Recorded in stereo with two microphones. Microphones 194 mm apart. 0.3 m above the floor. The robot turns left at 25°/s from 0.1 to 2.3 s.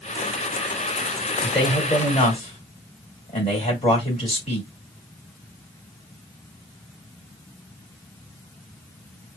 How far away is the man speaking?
About 1.9 m.